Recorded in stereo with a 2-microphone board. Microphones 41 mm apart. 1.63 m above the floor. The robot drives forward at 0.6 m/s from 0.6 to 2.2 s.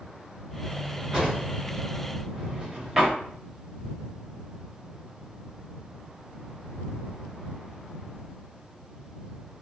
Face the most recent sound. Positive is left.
turn(degrees=-10)  # may be behind; listen again after turning